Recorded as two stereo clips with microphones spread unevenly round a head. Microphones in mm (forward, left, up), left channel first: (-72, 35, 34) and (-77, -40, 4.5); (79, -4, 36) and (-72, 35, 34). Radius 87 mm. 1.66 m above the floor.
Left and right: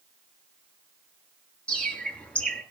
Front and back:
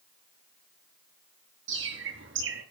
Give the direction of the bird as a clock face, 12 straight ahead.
7 o'clock.